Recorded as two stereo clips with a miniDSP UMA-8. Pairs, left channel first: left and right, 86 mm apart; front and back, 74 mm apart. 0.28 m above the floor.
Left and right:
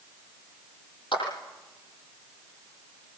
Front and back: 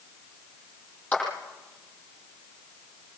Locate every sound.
1.1 s a clap: 70° left, 9 m